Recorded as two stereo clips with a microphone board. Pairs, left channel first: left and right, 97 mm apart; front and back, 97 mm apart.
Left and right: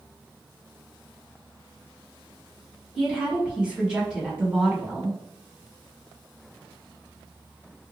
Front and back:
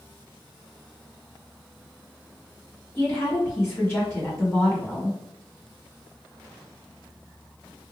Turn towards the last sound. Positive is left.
turn(degrees=-20)